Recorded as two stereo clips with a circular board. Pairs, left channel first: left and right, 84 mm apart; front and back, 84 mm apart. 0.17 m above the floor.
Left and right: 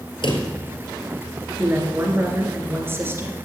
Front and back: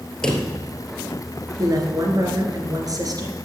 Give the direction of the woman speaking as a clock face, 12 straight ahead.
5 o'clock.